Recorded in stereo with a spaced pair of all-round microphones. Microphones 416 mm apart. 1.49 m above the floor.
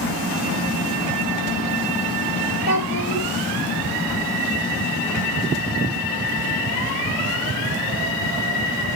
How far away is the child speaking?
About 3 m.